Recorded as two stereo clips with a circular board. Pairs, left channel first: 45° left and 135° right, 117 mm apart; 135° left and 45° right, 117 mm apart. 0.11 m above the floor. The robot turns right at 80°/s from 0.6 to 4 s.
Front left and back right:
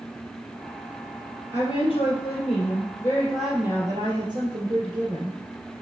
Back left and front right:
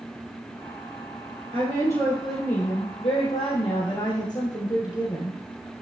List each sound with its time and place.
1.5 s a woman speaking: 15° right, 2.5 m; by 5.4 s straight behind, 2.5 m